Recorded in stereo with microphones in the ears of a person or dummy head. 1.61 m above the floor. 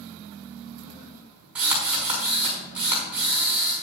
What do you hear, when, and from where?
1.6 s a drill: 5° right (ahead or behind), 5 m